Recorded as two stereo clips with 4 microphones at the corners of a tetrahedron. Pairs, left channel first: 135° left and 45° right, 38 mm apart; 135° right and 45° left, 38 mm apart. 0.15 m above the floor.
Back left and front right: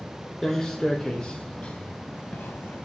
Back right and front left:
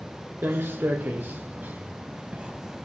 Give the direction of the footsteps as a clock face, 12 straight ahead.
10 o'clock.